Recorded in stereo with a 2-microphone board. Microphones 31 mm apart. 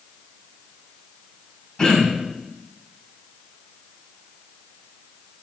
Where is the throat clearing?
30° left (ahead or behind), 3 m.